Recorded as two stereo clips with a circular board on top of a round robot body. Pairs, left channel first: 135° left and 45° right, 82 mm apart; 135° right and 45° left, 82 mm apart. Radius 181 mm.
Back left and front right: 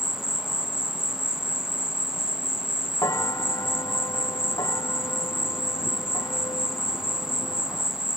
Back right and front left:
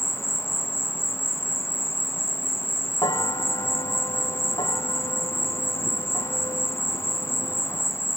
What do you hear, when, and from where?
0.0 s an insect: 125° right
3.0 s a bell: 175° right